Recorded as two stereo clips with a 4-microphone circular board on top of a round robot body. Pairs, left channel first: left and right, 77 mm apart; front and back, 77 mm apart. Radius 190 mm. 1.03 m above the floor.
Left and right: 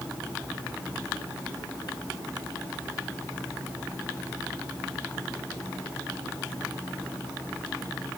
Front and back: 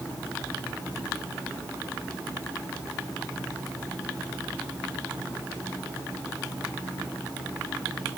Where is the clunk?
I don't hear a clunk.